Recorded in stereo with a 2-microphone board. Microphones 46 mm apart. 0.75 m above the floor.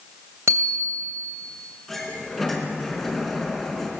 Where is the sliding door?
5° left (ahead or behind), 4 m.